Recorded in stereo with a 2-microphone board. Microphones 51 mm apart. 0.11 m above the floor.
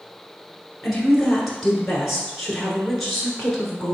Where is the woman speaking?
5° left (ahead or behind), 1.1 m.